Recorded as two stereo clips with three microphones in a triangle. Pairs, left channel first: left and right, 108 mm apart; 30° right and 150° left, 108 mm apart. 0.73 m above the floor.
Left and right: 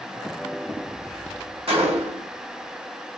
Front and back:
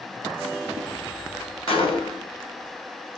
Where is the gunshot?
65° right, 0.9 m.